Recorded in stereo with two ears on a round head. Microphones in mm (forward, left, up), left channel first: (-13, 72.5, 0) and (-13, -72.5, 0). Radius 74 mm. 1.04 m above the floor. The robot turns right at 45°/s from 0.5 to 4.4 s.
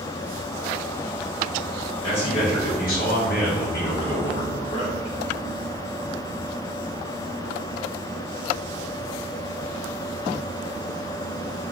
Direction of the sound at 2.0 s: 30° left.